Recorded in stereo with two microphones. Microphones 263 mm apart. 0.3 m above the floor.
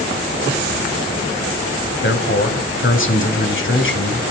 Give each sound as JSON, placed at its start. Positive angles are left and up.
{"t": 2.0, "sound": "a man speaking", "side_deg": 50, "distance_m": 1.7}